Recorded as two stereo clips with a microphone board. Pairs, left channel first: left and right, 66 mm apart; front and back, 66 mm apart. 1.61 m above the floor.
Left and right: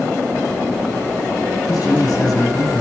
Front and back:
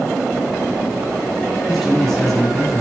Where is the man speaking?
85° left, 4.5 m.